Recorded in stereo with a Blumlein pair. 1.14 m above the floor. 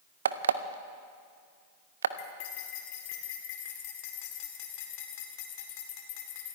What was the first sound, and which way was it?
An alarm clock, 65° right.